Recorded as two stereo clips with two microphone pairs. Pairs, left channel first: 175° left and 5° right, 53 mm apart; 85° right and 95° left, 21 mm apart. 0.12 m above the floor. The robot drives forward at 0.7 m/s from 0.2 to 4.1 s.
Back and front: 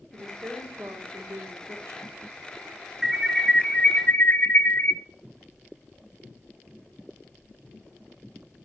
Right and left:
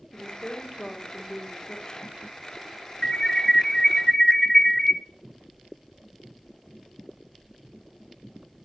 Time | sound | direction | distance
0.1 | a woman speaking | 25° right | 5.5 m
3.0 | an alarm | 85° right | 0.8 m